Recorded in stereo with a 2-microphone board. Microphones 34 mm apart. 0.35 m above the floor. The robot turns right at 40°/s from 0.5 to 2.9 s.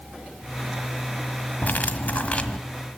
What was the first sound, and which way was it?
Cutlery clinking, 105° left.